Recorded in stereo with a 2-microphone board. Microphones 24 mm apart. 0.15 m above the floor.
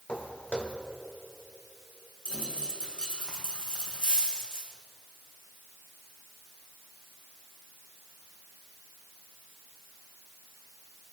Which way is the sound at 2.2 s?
55° left (ahead or behind).